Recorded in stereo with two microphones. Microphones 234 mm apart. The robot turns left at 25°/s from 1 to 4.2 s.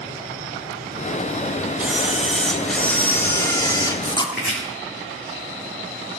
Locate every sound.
1.8 s a camera shutter: 5° right (ahead or behind), 1.4 m; by 4.3 s 20° left (ahead or behind), 1.4 m
4.3 s chopping: 50° left (ahead or behind), 4.5 m